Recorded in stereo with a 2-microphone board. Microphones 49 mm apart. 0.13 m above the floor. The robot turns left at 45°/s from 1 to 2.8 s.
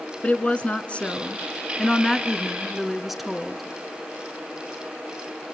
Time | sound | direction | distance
0.2 | a woman speaking | 25° left (ahead or behind) | 1.2 m